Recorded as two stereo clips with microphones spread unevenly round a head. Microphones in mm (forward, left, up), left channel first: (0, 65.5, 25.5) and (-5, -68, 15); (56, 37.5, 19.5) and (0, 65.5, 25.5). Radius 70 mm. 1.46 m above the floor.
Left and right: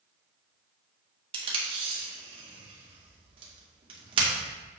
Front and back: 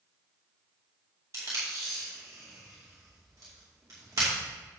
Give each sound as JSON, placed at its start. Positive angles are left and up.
{"t": 1.3, "sound": "tape being pulled", "azimuth_deg": -145, "distance_m": 2.5}